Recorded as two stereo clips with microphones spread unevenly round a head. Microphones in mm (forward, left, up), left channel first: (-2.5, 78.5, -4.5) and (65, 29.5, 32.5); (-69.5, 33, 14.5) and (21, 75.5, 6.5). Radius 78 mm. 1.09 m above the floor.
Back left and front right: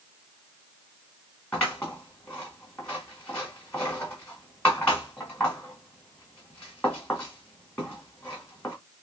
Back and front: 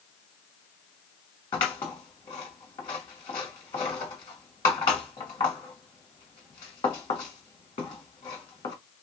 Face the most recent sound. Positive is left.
turn(degrees=-110)